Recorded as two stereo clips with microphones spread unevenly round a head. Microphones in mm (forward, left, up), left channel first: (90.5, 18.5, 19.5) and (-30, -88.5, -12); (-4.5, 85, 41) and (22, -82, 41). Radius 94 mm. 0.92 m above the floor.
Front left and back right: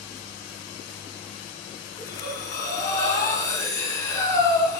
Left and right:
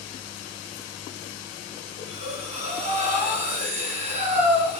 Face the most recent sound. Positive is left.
turn(degrees=-25)